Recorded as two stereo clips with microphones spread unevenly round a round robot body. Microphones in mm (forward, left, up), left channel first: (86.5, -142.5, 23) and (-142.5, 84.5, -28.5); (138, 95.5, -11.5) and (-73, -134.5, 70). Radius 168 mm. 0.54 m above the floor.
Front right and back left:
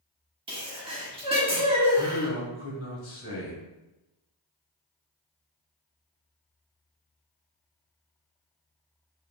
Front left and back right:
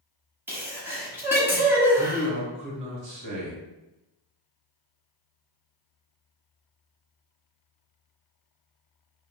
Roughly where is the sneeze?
Behind left.